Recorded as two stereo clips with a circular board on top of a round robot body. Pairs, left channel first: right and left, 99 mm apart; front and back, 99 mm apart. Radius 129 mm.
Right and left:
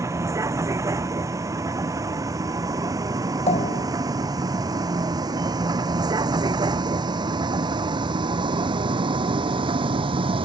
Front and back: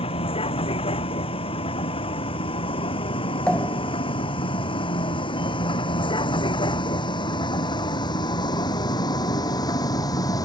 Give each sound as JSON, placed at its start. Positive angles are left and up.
{"t": 0.0, "sound": "a vehicle", "azimuth_deg": 30}
{"t": 3.5, "sound": "a pop", "azimuth_deg": -80}